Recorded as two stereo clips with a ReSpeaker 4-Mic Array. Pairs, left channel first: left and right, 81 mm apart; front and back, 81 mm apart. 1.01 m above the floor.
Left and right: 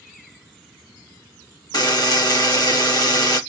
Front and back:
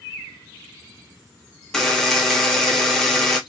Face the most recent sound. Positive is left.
turn(degrees=80)